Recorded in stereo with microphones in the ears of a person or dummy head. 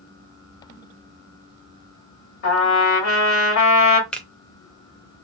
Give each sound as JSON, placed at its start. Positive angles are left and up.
{"t": 2.4, "sound": "a trumpet", "side_deg": 70, "distance_m": 1.8}
{"t": 4.1, "sound": "a finger snap", "side_deg": 10, "distance_m": 0.6}